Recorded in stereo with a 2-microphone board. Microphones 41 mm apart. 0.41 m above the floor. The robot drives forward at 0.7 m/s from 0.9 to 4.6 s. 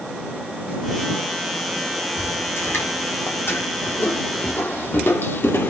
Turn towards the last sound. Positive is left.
turn(degrees=65)  # may be behind; listen again after turning